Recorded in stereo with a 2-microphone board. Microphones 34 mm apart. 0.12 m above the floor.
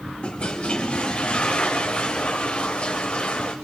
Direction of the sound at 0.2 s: 30° left (ahead or behind).